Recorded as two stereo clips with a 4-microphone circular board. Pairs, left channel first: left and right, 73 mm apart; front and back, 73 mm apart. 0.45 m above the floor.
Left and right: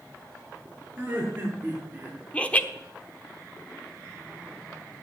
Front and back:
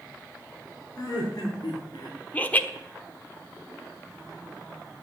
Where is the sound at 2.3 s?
40° left, 1.0 m.